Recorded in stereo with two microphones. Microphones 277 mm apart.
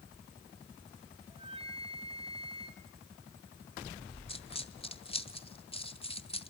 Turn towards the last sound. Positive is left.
turn(degrees=20)  # may be behind; listen again after turning